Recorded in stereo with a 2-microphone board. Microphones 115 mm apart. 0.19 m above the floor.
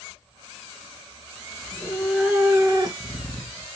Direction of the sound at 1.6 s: 20° left (ahead or behind).